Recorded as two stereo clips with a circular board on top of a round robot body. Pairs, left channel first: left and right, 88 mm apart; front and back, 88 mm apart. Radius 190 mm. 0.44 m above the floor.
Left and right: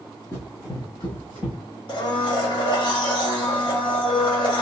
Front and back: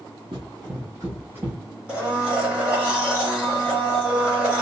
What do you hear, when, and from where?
0.3 s running footsteps: 150° left, 0.7 m; by 1.6 s 110° left, 1.2 m
1.9 s a blender: 105° left, 1.8 m